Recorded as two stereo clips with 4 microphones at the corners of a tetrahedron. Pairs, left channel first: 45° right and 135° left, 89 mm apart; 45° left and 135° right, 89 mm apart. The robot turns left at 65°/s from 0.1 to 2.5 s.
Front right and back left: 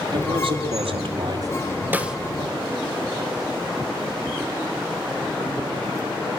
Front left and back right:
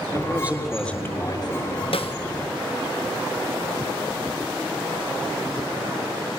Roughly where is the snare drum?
Ahead left.